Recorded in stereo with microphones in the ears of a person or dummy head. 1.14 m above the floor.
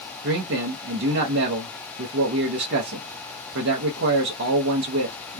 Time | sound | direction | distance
0.2 | a man speaking | 60° right (ahead or behind) | 0.8 m